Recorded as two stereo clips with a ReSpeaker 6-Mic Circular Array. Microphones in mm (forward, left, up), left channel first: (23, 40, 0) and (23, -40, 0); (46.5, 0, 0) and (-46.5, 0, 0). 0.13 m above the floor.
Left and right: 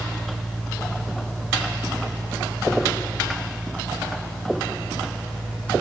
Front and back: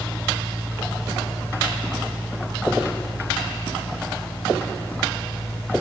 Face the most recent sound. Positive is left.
No sound to turn to.